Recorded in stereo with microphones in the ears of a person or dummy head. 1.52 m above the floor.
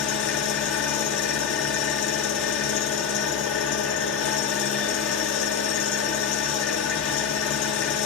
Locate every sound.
0.0 s an engine running: 70° left (ahead or behind), 1.9 m